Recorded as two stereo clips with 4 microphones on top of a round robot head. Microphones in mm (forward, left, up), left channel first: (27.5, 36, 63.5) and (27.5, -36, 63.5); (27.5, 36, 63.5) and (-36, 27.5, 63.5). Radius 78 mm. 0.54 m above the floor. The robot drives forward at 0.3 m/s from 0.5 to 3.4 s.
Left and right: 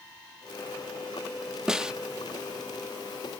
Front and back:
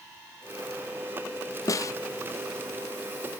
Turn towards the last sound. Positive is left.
turn(degrees=-90)